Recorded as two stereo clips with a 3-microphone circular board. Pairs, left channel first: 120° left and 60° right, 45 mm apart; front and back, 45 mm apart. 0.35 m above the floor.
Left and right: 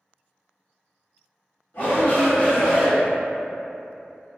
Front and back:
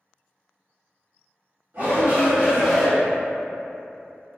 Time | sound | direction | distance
1.7 | a shout | 155° left | 1.4 m